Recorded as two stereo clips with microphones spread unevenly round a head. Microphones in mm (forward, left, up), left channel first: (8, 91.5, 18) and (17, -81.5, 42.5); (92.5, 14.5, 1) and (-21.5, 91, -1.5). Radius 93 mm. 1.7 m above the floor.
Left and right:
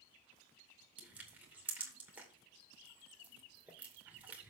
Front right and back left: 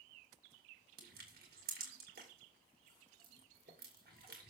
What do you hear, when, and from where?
1.0 s crushing: 170° right, 2.5 m